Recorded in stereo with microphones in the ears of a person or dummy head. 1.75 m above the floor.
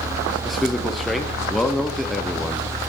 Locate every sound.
0.5 s a man speaking: 5° left (ahead or behind), 0.8 m